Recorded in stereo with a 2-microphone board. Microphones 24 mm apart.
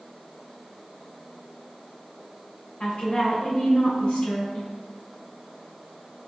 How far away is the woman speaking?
About 2.0 m.